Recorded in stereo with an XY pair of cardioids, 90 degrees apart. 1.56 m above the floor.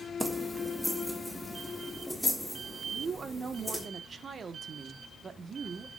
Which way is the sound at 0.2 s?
10° right.